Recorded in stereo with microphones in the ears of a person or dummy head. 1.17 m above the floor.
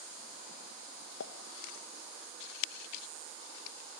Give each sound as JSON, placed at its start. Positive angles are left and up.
{"t": 1.2, "sound": "a pop", "side_deg": 65, "distance_m": 1.6}